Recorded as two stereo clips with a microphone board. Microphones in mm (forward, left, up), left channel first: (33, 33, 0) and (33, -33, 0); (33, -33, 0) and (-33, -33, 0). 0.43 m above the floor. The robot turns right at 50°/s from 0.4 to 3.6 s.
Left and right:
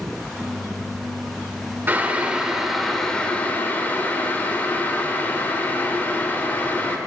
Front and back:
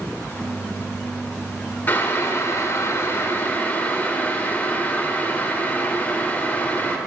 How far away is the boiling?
About 1.1 m.